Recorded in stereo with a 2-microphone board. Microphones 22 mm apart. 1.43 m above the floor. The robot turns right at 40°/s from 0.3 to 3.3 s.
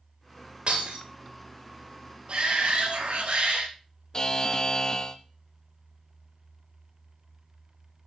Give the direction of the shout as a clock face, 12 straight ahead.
4 o'clock.